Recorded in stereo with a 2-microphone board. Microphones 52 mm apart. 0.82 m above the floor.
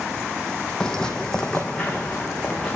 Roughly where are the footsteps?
Centre.